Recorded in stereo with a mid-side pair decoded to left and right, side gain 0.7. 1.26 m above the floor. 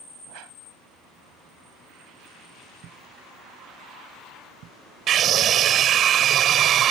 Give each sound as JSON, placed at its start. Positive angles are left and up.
{"t": 0.3, "sound": "a whoosh", "azimuth_deg": -65}
{"t": 2.8, "sound": "a thud", "azimuth_deg": -50}
{"t": 5.1, "sound": "a scream", "azimuth_deg": -45}